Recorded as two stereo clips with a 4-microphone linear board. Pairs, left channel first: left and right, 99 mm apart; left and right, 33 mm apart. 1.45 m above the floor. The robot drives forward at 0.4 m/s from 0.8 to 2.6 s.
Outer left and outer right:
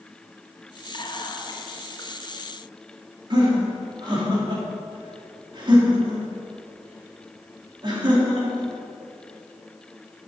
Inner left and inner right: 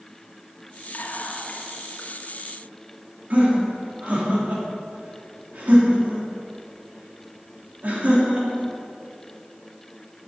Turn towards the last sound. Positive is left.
turn(degrees=-45)  # may be behind; listen again after turning